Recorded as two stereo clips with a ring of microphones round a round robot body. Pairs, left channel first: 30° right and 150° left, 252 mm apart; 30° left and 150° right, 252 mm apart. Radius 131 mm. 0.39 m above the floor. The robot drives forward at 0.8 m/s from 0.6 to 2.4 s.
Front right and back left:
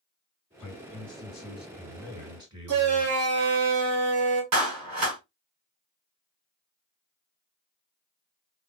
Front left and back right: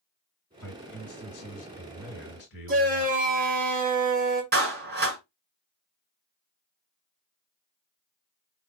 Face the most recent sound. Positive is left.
turn(degrees=160)